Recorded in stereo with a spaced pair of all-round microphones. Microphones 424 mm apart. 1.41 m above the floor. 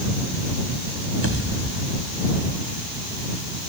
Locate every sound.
1.2 s a pop: 30° right (ahead or behind)